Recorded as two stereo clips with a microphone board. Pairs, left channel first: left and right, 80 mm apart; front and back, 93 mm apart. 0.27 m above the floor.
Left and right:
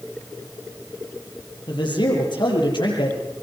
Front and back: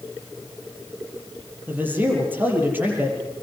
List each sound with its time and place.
1.7 s a man speaking: 110° left, 7.5 m